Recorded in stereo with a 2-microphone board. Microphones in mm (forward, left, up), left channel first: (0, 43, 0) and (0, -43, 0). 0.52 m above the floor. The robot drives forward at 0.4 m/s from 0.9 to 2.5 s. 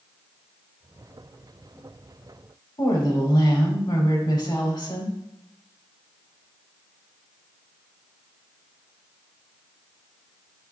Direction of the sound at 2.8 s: 50° left (ahead or behind).